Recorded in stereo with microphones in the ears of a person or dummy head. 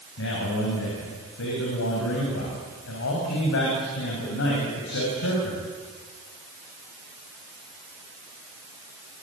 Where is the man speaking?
65° left (ahead or behind), 6.5 m.